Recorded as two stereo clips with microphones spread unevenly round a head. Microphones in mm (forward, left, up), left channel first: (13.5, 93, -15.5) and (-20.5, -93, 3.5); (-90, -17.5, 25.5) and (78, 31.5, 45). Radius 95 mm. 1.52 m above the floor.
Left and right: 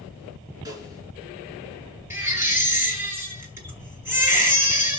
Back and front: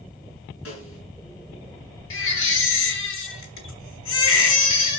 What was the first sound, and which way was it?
A snare drum, 170° right.